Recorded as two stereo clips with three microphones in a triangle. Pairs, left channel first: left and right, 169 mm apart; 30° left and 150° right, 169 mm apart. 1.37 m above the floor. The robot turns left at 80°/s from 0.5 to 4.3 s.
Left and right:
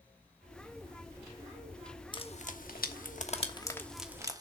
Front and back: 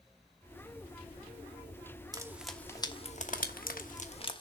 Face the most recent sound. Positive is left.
turn(degrees=-25)